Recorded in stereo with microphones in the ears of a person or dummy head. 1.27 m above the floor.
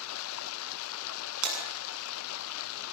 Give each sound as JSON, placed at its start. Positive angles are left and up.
{"t": 0.0, "sound": "running water", "side_deg": 85, "distance_m": 1.0}
{"t": 1.4, "sound": "breaking glass", "side_deg": -80, "distance_m": 8.0}